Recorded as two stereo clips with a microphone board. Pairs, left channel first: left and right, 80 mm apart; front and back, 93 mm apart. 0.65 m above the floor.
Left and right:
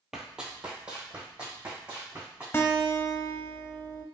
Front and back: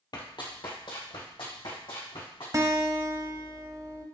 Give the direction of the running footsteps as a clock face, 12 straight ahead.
12 o'clock.